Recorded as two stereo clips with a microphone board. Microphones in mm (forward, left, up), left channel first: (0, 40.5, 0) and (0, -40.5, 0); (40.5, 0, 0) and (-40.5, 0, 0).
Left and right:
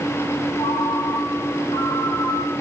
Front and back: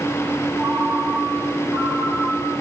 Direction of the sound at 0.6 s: 115° left.